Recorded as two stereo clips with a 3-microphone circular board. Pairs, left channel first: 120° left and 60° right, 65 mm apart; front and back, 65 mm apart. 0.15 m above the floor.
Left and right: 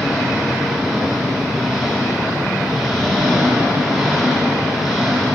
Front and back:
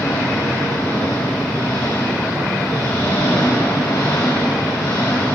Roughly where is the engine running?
Ahead.